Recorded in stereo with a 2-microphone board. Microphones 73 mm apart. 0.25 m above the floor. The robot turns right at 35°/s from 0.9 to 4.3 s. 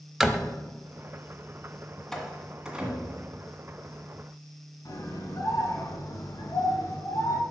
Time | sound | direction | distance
0.2 | a door slam | 5° right (ahead or behind) | 0.7 m
2.1 | a door slam | 10° left (ahead or behind) | 1.8 m
4.8 | a scream | 50° left (ahead or behind) | 3 m